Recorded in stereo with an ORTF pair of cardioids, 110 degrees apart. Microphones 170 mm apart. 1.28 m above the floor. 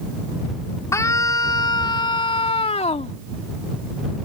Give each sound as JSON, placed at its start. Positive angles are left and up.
{"t": 0.9, "sound": "a scream", "azimuth_deg": 15}